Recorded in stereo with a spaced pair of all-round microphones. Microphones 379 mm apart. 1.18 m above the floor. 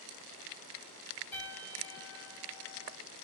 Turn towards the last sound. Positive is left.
turn(degrees=5)  # may be behind; listen again after turning